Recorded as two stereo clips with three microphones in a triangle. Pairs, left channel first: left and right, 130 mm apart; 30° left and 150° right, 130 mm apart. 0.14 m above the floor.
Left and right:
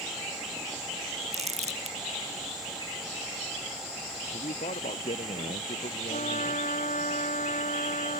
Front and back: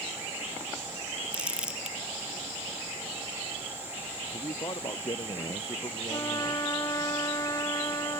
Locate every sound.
1.3 s crumpling: 70° right
4.3 s a man speaking: 85° left
6.1 s a trumpet: 90° left